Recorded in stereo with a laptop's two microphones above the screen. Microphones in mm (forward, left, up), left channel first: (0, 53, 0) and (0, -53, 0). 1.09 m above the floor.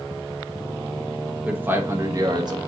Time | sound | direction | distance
1.4 | a man speaking | 15° right (ahead or behind) | 1.0 m